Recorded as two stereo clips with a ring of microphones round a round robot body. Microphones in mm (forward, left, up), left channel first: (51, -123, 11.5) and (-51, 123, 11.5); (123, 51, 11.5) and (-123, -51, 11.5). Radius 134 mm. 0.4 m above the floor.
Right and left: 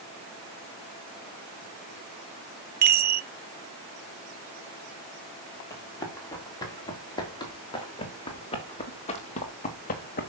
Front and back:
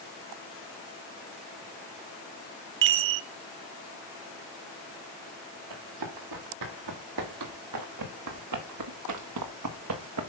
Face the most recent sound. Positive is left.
turn(degrees=-125)